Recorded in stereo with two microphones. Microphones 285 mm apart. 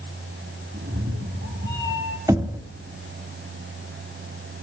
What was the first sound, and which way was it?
A cat meowing, 45° right (ahead or behind).